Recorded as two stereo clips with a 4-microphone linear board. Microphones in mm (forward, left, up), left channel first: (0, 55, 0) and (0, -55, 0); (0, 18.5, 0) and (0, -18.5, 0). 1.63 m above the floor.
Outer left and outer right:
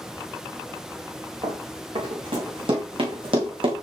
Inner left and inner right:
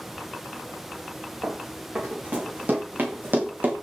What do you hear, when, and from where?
1.4 s running footsteps: 50° right (ahead or behind), 6.5 m; by 3.7 s 55° right (ahead or behind), 5 m